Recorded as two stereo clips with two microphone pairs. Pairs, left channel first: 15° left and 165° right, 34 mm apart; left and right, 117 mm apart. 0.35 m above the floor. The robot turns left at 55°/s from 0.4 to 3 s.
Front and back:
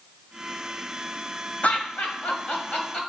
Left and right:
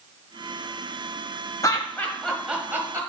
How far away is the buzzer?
I don't hear a buzzer.